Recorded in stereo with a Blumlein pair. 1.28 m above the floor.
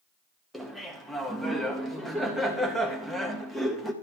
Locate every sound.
0.5 s laughter: 5° left, 1.7 m